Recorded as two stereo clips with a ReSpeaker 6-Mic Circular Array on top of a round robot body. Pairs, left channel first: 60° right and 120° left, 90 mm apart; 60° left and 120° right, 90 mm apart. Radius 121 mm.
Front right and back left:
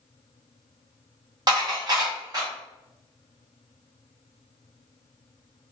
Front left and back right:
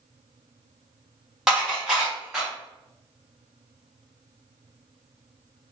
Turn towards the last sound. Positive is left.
turn(degrees=155)